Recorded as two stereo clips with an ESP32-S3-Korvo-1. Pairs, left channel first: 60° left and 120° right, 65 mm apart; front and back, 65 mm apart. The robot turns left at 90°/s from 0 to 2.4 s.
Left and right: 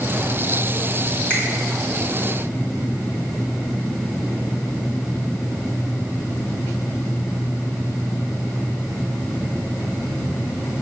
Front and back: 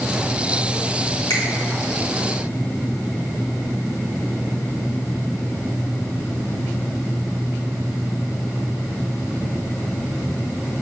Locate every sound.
1.3 s a finger snap: 5° right, 1.7 m; by 1.4 s 15° right, 1.7 m